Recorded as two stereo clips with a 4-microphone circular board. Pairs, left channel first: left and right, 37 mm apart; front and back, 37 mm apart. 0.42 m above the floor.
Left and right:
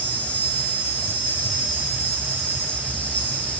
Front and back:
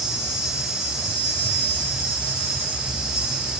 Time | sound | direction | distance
0.0 | an insect | 105° left | 3 m